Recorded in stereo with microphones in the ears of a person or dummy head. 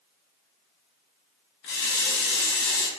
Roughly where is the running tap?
Left.